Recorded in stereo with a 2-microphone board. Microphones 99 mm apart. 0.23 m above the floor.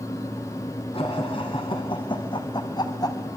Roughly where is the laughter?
Left.